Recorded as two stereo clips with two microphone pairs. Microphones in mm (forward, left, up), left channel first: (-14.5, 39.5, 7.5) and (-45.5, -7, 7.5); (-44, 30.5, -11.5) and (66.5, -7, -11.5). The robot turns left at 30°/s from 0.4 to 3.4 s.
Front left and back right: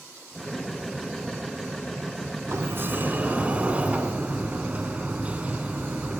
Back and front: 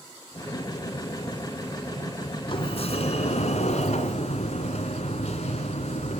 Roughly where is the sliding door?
Behind.